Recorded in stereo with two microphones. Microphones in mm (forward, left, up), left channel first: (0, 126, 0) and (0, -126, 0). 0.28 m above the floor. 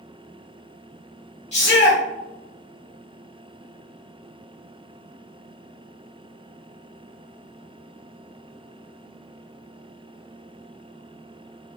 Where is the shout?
25° left (ahead or behind), 1.6 m.